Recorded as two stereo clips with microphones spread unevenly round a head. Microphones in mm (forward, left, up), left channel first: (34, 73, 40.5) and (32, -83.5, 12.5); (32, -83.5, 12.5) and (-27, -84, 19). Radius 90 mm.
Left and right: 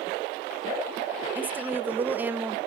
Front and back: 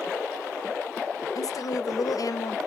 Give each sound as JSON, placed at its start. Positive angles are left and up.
{"t": 1.4, "sound": "a woman speaking", "azimuth_deg": -15, "distance_m": 0.6}